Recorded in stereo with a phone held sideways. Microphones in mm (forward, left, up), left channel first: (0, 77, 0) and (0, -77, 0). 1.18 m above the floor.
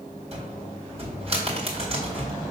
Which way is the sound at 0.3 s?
40° right (ahead or behind).